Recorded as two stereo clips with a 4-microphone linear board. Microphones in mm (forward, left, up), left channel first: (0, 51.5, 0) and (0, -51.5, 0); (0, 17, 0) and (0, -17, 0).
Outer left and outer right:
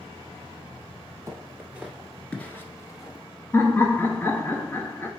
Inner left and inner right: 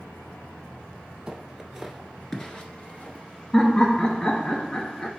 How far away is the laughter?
About 1.5 m.